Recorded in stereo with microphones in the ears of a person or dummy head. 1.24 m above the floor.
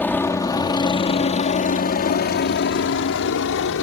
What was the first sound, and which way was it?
A helicopter, 10° left (ahead or behind).